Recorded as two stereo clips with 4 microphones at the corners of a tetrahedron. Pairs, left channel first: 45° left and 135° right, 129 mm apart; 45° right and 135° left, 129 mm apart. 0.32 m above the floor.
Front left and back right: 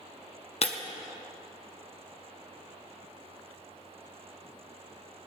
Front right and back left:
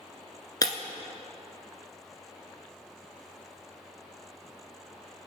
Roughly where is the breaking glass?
Ahead.